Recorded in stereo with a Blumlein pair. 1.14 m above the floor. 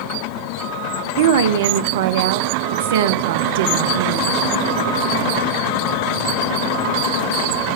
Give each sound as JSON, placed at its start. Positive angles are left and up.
{"t": 1.2, "sound": "a woman speaking", "azimuth_deg": -55, "distance_m": 0.5}